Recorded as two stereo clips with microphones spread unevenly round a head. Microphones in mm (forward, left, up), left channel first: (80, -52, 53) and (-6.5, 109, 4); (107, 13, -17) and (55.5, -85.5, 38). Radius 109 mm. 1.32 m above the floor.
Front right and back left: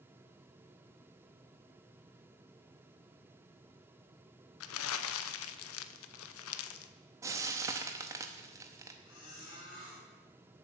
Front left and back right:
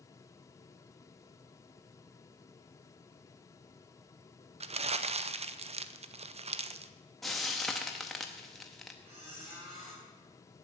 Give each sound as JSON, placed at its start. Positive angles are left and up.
{"t": 4.6, "sound": "crumpling", "azimuth_deg": -75, "distance_m": 0.6}
{"t": 7.2, "sound": "frying", "azimuth_deg": -150, "distance_m": 0.7}
{"t": 9.1, "sound": "a squeak", "azimuth_deg": -100, "distance_m": 7.0}